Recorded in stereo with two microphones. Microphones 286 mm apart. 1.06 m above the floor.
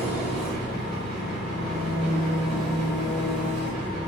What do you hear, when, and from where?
0.0 s an engine running: 35° left (ahead or behind), 1.7 m